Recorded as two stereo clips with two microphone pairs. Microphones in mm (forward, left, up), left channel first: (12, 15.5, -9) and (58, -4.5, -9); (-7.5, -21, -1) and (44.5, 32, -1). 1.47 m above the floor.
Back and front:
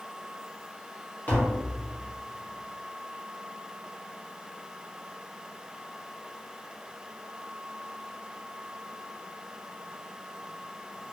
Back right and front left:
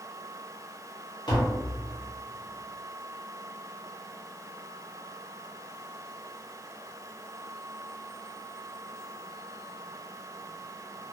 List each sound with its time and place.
1.3 s tapping: 155° right, 1.0 m